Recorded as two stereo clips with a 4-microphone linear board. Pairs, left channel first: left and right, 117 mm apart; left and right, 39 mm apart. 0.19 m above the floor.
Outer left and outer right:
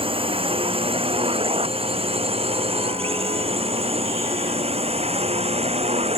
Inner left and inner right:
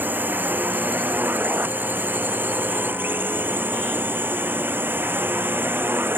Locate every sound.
0.0 s a drone: 50° right (ahead or behind); by 6.2 s 60° right (ahead or behind)